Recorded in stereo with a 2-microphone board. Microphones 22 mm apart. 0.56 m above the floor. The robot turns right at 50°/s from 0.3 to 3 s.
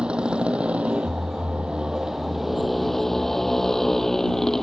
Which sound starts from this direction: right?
A motorcycle, at 0.0 s.